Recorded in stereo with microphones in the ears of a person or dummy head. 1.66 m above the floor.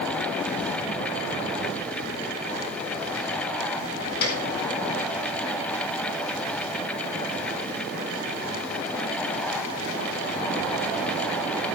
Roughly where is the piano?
Left.